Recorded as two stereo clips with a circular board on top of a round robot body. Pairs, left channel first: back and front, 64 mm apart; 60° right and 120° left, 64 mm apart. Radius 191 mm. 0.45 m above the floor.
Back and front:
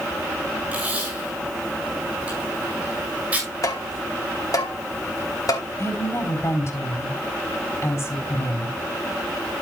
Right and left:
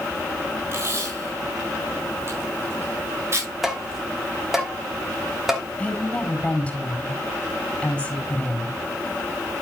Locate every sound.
0.7 s tape being pulled: 70° left, 6.5 m
3.6 s tapping: 155° right, 3 m
5.8 s a woman speaking: 135° right, 4.5 m